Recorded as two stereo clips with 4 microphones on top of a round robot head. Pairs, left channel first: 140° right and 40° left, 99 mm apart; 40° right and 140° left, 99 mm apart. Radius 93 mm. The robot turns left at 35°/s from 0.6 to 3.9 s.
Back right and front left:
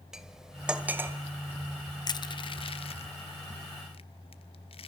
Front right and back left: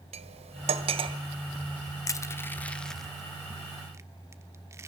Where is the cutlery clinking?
125° left, 1.8 m; by 1.2 s 105° left, 1.8 m.